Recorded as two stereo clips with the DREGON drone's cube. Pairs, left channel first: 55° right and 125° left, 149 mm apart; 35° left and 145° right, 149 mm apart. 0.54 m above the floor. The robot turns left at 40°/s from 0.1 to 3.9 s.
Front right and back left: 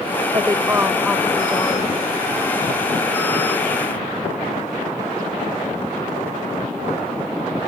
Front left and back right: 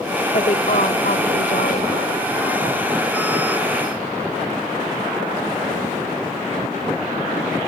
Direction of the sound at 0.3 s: 70° left.